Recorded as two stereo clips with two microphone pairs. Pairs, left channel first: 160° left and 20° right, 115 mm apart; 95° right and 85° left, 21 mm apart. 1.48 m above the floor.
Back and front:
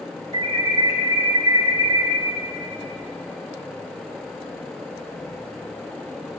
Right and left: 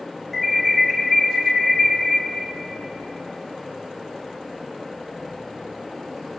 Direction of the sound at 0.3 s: 20° right.